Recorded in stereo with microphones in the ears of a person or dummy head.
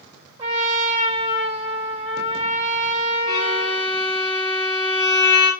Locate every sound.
0.4 s a trumpet: 25° right (ahead or behind), 3 m
3.3 s a violin: 10° right (ahead or behind), 2.5 m